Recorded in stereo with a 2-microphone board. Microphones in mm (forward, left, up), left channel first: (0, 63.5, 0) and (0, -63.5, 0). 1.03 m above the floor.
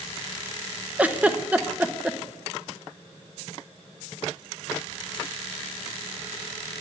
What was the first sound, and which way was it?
A giggle, 10° right (ahead or behind).